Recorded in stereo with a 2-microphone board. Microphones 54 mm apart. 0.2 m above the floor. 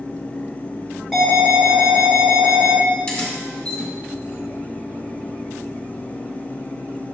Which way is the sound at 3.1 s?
20° left (ahead or behind).